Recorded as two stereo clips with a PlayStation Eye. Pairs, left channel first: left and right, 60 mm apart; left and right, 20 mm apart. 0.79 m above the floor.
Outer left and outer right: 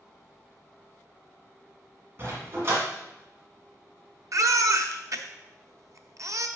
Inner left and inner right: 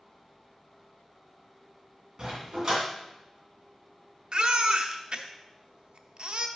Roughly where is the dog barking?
Right.